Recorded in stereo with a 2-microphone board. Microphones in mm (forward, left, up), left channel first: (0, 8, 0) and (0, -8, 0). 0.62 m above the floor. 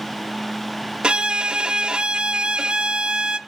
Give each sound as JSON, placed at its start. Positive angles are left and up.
{"t": 1.0, "sound": "a violin", "side_deg": -65, "distance_m": 0.5}